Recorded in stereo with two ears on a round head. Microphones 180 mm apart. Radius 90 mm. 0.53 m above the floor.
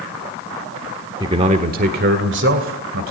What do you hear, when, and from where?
1.2 s a man speaking: 25° right (ahead or behind), 1.2 m; by 3.1 s 70° right (ahead or behind), 2.5 m